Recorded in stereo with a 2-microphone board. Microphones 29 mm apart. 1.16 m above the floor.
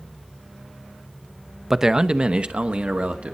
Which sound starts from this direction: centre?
A man speaking, at 1.7 s.